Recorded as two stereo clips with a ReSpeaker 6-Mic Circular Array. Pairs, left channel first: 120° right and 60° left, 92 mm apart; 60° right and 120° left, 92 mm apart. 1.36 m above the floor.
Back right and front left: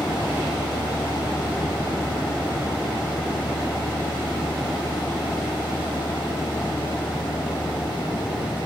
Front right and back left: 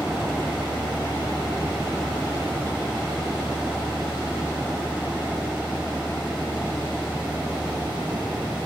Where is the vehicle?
150° right.